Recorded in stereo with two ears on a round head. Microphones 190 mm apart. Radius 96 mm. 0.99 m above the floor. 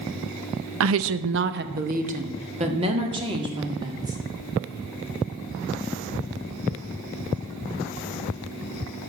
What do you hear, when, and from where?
0.8 s a woman speaking: 70° right (ahead or behind), 0.6 m; by 4.2 s 20° right (ahead or behind), 2.5 m